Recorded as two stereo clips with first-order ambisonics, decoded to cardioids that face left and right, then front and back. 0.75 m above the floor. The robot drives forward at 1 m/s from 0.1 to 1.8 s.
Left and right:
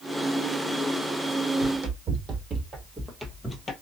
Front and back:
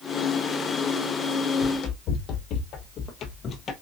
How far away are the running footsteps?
About 1.7 m.